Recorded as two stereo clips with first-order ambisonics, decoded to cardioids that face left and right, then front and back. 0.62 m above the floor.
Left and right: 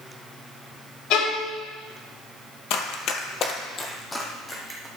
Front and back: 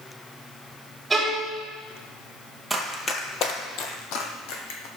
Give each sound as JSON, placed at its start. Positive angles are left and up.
{"t": 1.1, "sound": "a violin", "azimuth_deg": 100, "distance_m": 2.0}
{"t": 2.7, "sound": "running footsteps", "azimuth_deg": 90, "distance_m": 1.0}